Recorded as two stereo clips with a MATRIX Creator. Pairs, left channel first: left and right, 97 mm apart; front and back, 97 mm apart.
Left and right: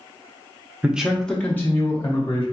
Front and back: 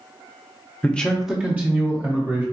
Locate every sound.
0.8 s a man speaking: 40° right, 0.6 m; by 2.4 s 135° left, 1.0 m